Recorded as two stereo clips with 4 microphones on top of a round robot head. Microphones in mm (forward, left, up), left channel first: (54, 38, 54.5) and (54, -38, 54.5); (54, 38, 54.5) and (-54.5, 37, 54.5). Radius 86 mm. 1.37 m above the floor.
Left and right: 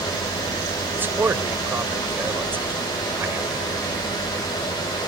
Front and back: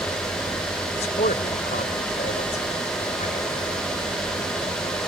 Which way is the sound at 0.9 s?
30° right.